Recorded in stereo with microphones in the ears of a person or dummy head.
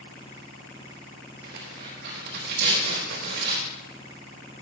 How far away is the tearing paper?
About 3.5 m.